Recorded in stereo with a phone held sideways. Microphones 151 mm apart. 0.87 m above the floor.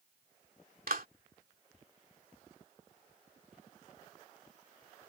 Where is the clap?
75° right (ahead or behind).